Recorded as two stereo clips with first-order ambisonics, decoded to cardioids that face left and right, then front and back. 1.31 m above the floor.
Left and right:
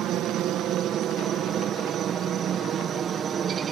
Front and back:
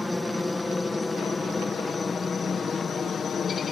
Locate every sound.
0.0 s a helicopter: 85° right; by 3.7 s 45° right